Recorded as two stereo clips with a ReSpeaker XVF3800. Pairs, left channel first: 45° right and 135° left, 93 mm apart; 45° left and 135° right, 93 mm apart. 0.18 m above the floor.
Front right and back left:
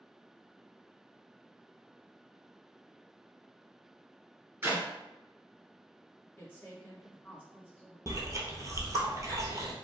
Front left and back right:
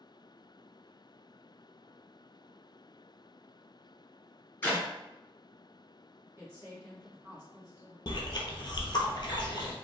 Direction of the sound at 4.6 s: 95° left.